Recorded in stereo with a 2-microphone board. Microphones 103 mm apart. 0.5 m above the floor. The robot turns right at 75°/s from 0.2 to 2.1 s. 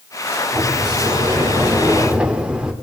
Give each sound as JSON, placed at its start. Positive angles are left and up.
{"t": 0.5, "sound": "a sliding door", "azimuth_deg": -135, "distance_m": 1.6}